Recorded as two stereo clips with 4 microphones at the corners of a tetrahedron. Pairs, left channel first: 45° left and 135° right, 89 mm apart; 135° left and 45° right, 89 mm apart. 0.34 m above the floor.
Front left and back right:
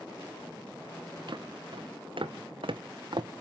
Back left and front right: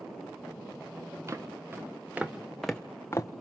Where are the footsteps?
100° right, 2.0 m; by 3.3 s 170° right, 1.0 m.